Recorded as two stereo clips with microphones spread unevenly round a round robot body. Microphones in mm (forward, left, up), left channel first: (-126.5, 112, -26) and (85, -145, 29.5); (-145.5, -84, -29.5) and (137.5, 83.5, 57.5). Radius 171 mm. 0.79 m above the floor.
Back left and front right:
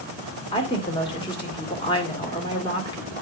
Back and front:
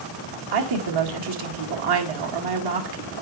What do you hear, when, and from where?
0.5 s a woman speaking: 55° left, 2.0 m